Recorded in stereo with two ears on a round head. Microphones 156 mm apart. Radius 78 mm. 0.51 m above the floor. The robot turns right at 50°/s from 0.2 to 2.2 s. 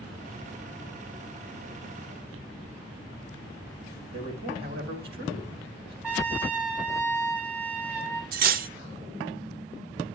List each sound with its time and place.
4.1 s a man speaking: 60° right (ahead or behind), 3 m
6.0 s a trumpet: 10° right (ahead or behind), 4 m
8.3 s cutlery clinking: 55° right (ahead or behind), 0.5 m